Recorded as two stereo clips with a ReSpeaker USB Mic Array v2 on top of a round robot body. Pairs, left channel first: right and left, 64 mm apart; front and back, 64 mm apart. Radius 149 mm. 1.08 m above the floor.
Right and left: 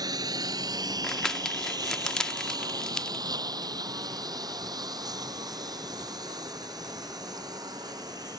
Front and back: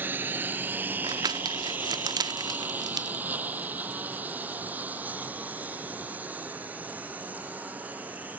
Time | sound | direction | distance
0.0 | a lawn mower | 115° left | ?
1.0 | crumpling | 170° right | ?